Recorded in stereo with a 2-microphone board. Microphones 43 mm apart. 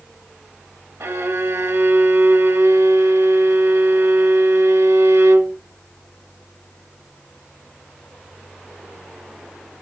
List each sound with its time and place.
1.0 s a violin: 80° right, 0.6 m